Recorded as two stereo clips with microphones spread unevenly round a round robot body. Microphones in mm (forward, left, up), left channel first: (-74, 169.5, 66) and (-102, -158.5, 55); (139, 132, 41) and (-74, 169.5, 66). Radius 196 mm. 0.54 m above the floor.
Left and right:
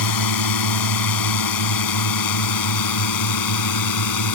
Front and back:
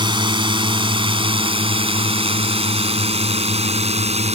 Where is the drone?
100° left; by 4.3 s 110° left.